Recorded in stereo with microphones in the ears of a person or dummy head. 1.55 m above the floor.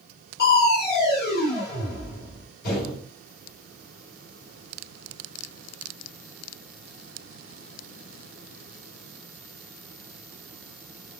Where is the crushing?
65° left (ahead or behind), 2 m.